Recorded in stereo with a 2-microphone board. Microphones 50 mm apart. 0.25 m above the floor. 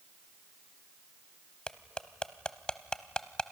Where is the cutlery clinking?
20° left (ahead or behind), 0.7 m.